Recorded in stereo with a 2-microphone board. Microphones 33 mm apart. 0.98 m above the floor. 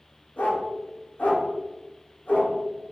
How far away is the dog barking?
About 1.0 m.